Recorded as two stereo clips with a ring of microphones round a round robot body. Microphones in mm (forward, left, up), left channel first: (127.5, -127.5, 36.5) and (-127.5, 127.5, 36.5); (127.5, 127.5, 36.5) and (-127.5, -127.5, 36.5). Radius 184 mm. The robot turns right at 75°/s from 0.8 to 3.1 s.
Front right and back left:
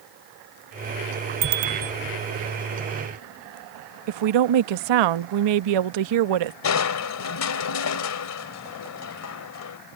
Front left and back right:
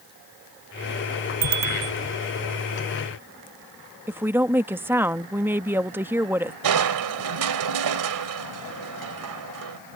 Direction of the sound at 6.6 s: 95° right.